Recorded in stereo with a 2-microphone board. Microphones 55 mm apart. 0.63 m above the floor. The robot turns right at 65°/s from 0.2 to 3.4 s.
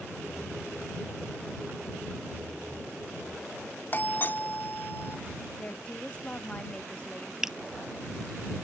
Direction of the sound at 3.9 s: 40° left (ahead or behind).